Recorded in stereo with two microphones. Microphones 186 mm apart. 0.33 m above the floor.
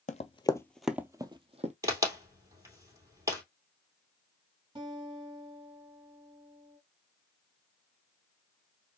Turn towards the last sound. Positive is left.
turn(degrees=-30)  # may be behind; listen again after turning